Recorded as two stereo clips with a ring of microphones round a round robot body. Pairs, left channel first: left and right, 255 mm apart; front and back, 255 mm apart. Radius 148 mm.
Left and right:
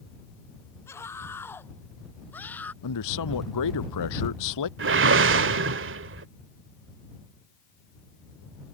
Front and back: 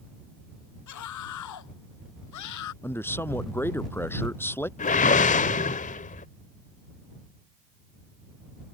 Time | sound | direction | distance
0.9 | a scream | 10° left | ?
2.8 | a man speaking | 80° left | ?
4.8 | a whoosh | 55° right | ?